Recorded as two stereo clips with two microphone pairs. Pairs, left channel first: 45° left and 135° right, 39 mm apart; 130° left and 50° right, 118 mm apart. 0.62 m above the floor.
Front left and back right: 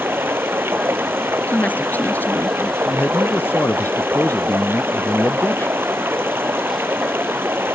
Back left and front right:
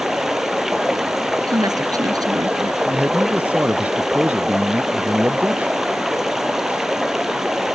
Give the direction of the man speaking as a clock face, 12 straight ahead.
11 o'clock.